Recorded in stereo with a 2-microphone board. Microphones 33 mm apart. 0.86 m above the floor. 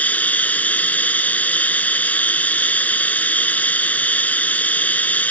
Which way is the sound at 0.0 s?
50° left (ahead or behind).